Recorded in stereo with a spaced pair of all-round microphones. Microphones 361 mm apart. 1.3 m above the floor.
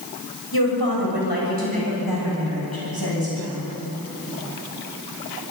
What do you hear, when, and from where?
0.5 s a woman speaking: 85° left, 7.5 m